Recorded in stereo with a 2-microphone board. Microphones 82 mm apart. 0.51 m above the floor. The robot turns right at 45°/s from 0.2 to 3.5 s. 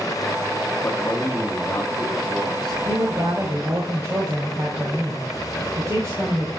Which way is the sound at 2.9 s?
60° right (ahead or behind).